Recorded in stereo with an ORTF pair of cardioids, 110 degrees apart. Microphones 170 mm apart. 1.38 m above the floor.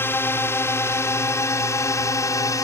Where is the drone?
15° left; by 2.6 s 20° left.